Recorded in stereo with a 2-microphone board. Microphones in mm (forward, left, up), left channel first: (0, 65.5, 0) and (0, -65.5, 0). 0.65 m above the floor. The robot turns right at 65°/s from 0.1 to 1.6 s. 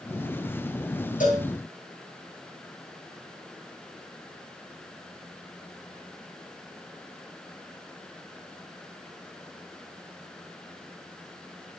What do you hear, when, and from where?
1.2 s a cowbell: 75° left (ahead or behind), 9 m; by 1.5 s 85° left, 9 m